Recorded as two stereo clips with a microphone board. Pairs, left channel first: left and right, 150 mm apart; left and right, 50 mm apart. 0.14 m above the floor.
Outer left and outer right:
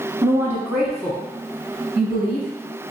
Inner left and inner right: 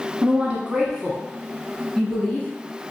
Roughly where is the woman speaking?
Right.